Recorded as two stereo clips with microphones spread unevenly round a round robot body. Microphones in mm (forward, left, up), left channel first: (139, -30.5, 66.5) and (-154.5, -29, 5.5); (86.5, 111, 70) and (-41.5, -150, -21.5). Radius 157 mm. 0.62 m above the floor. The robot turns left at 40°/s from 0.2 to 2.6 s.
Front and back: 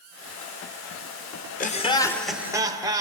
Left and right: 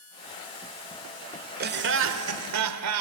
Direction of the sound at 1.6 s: 65° right.